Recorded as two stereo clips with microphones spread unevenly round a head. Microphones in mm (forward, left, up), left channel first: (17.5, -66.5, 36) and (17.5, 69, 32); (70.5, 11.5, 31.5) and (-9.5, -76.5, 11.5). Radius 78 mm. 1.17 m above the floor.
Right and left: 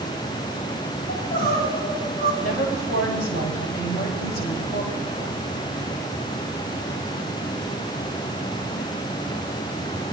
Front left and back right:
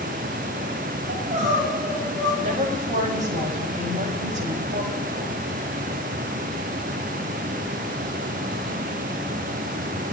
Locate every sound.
1.1 s crying: 115° right, 8.5 m
2.4 s a woman speaking: 115° right, 6 m